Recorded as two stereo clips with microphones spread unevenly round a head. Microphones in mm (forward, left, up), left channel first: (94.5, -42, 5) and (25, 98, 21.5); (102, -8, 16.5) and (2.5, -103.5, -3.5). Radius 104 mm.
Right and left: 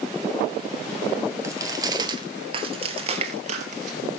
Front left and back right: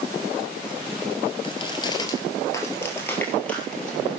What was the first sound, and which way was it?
Footsteps, 65° left.